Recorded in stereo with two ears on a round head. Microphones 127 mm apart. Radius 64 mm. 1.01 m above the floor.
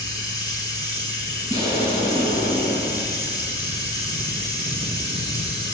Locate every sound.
0.0 s running water: 30° left (ahead or behind), 4.5 m
1.5 s an explosion: 25° right (ahead or behind), 8.5 m